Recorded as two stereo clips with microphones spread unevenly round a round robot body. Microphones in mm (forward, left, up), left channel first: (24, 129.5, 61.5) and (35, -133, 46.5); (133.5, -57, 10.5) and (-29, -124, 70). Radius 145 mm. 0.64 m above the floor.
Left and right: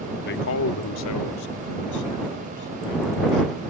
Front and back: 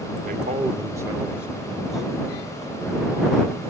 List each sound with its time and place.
0.2 s a man speaking: 145° left; by 3.6 s 105° left